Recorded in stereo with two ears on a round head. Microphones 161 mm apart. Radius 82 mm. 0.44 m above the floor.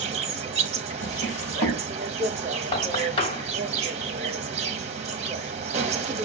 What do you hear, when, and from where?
0.0 s an insect: 35° right (ahead or behind), 0.9 m
1.0 s a drawer: 40° left (ahead or behind), 1.1 m
2.7 s knocking: 30° left (ahead or behind), 1.8 m